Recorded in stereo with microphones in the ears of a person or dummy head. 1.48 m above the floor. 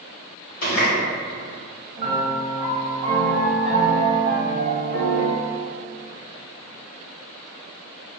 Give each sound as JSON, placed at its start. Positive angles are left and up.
{"t": 0.6, "sound": "a running tap", "side_deg": 60, "distance_m": 1.4}
{"t": 2.0, "sound": "a piano", "side_deg": -35, "distance_m": 1.1}